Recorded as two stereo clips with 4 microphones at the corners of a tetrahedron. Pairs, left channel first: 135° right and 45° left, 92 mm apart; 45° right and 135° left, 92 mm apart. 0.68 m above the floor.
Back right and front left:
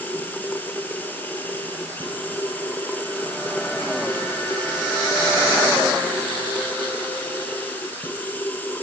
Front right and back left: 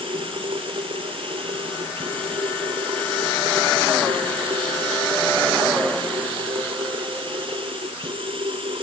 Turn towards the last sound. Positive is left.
turn(degrees=155)